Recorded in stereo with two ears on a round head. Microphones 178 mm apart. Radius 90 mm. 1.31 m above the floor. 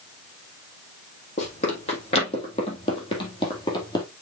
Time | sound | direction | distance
1.4 | running footsteps | 35° left (ahead or behind) | 3.5 m